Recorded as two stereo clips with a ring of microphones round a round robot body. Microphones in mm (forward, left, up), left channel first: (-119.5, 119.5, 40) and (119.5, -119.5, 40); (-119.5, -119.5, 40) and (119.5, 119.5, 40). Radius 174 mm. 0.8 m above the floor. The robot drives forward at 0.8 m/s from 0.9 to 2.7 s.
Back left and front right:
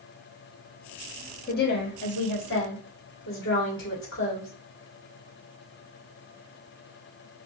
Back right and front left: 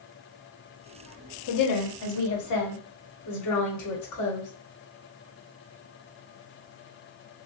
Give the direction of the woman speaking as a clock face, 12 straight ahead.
5 o'clock.